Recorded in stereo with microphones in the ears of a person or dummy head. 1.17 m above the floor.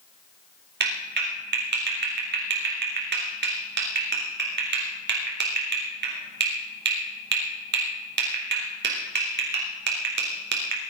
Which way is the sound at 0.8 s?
55° right (ahead or behind).